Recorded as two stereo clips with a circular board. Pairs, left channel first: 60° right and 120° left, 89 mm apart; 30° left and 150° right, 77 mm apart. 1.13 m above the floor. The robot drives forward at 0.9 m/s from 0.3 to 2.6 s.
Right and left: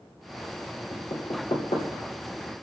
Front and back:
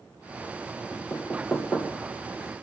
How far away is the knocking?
About 3 m.